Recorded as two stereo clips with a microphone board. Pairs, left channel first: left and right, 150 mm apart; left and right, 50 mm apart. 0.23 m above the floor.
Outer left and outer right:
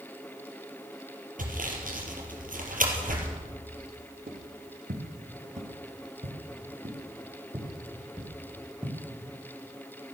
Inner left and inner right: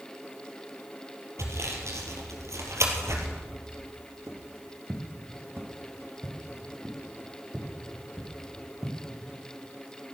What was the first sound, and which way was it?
Sawing, 65° right (ahead or behind).